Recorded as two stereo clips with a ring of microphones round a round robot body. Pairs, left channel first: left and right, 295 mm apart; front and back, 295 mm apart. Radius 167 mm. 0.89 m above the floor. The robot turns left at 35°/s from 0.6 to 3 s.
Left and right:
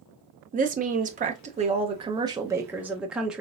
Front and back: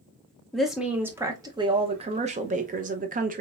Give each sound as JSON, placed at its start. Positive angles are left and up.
{"t": 0.5, "sound": "a woman speaking", "azimuth_deg": -90, "distance_m": 0.6}